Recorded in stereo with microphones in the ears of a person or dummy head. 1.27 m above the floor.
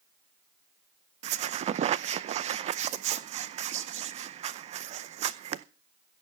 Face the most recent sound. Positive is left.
turn(degrees=-45)  # may be behind; listen again after turning